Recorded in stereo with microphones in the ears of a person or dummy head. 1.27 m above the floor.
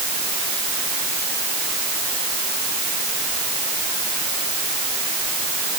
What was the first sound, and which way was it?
Only background noise.